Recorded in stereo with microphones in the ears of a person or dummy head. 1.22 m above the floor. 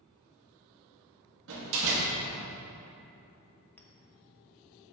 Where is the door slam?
70° right (ahead or behind), 1.4 m.